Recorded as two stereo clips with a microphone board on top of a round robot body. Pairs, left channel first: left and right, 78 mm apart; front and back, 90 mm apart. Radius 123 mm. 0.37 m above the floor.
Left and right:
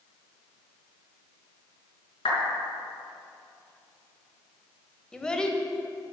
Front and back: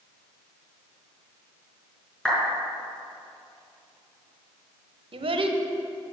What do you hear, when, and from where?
2.2 s a clap: 85° left, 5 m
5.1 s a child speaking: 170° left, 1.4 m